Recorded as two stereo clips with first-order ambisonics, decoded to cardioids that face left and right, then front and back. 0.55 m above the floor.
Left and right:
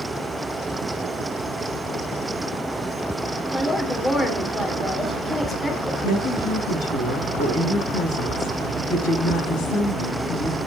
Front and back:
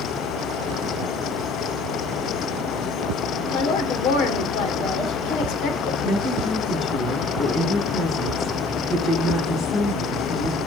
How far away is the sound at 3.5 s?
About 1.8 m.